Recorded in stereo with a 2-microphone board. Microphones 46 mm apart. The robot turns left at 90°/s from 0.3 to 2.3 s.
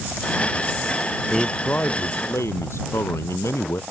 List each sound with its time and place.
1.3 s a man speaking: 175° right; by 3.8 s 95° left